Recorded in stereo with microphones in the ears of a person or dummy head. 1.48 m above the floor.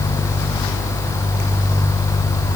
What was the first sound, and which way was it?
Only background noise.